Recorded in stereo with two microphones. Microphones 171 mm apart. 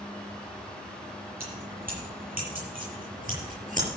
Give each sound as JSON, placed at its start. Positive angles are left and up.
{"t": 1.4, "sound": "keys jangling", "side_deg": -60, "distance_m": 9.0}